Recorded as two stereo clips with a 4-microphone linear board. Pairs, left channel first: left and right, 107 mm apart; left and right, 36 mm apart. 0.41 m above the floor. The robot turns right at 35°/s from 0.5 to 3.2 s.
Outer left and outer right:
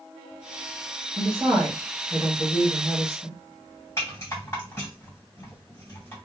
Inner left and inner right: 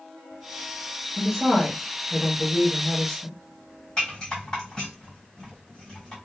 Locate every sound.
1.2 s a woman speaking: 45° right, 1.3 m; by 3.4 s 25° left, 1.3 m
4.0 s a rattle: 25° left (ahead or behind), 1.9 m